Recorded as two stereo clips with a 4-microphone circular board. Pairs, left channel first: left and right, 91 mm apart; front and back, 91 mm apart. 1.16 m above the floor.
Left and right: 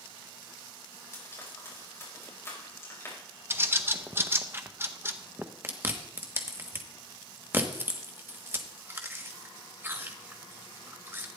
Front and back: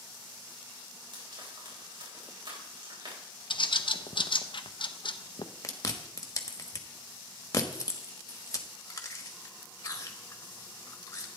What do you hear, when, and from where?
1.1 s frying: 150° left, 4.5 m
3.5 s a bird: 25° right, 0.7 m
5.6 s chewing: 35° right, 1.2 m